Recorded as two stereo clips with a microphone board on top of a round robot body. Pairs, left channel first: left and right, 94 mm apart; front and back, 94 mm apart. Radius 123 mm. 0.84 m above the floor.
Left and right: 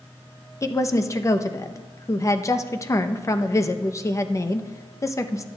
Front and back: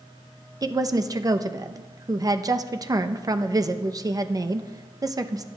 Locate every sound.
0.6 s a woman speaking: 140° left, 0.8 m